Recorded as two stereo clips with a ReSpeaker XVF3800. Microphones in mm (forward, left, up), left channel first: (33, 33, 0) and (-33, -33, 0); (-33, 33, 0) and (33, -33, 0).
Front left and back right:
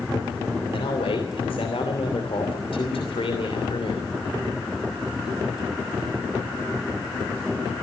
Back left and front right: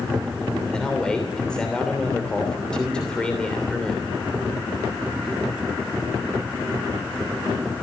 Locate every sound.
0.7 s a man speaking: 55° left, 3 m